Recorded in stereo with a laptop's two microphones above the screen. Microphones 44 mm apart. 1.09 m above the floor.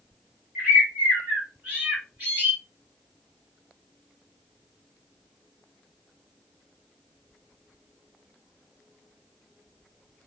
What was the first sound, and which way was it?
A bird, 40° right (ahead or behind).